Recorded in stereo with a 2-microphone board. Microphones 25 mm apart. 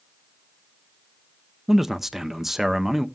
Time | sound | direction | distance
1.7 | a man speaking | 10° right (ahead or behind) | 0.6 m